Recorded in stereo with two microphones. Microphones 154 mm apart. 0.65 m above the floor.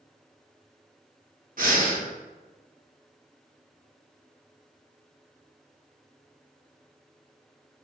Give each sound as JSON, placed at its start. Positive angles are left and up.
{"t": 1.6, "sound": "breathing", "side_deg": -65, "distance_m": 0.6}